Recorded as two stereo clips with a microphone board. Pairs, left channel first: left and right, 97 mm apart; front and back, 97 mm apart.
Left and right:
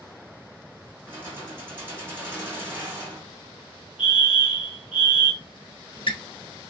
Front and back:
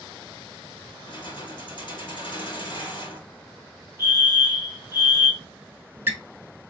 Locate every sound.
1.1 s keys jangling: 25° right, 1.9 m
4.0 s a fire alarm: 175° right, 2 m
5.4 s a squeak: 110° left, 0.5 m